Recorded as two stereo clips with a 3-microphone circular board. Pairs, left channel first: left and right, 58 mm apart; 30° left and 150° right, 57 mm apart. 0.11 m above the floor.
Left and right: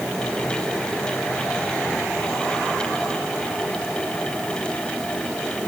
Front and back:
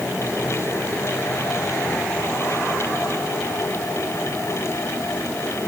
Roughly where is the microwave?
I don't hear a microwave.